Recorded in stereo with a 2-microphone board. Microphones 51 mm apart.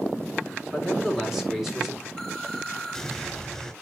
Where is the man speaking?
5° right (ahead or behind), 4.5 m.